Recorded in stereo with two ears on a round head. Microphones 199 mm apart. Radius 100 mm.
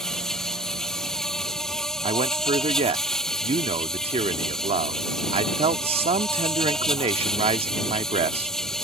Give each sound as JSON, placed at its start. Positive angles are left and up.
{"t": 0.0, "sound": "an insect", "side_deg": 0}
{"t": 2.0, "sound": "a man speaking", "side_deg": -25}